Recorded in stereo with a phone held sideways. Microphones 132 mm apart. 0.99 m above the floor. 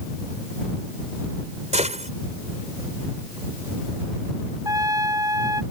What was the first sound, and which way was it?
A gunshot, 60° right (ahead or behind).